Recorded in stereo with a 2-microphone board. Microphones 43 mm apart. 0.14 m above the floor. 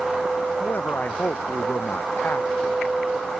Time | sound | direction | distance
0.6 | a man speaking | 45° left (ahead or behind) | ?